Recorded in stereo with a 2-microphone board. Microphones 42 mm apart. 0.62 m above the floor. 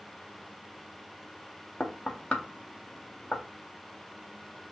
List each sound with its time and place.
1.8 s knocking: 30° left (ahead or behind), 0.6 m